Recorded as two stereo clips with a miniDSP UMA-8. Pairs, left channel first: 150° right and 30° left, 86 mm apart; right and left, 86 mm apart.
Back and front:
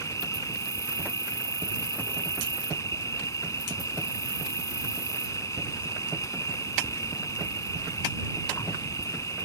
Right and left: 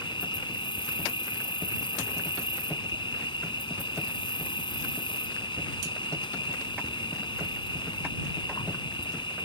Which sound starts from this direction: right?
An insect, at 0.0 s.